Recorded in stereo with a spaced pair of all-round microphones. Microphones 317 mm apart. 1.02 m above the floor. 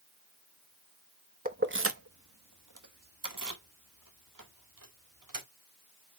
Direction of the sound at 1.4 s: 25° right (ahead or behind).